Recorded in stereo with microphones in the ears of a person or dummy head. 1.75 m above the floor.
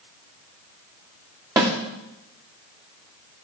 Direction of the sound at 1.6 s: 10° right (ahead or behind).